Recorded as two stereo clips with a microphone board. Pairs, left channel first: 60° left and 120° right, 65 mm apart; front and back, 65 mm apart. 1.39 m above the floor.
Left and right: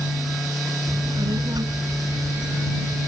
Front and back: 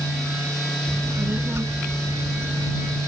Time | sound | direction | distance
0.9 | a child speaking | 125° right | ?